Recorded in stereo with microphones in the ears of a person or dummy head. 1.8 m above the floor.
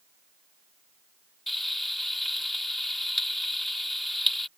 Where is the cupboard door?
I don't hear a cupboard door.